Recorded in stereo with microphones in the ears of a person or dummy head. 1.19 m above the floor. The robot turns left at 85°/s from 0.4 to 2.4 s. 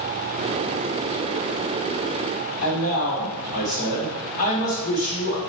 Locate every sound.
2.6 s a man speaking: 45° left (ahead or behind), 1.4 m